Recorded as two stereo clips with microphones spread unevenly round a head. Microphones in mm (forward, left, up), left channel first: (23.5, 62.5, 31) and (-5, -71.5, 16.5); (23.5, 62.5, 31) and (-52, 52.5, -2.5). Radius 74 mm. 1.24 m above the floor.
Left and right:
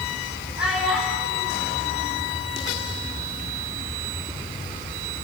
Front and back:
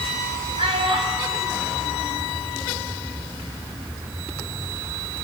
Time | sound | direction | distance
0.6 | a child speaking | 175° left | 7.5 m